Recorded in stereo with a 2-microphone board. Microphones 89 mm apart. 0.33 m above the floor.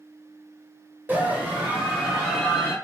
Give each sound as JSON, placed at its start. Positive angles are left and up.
{"t": 1.1, "sound": "a scream", "side_deg": -20, "distance_m": 1.0}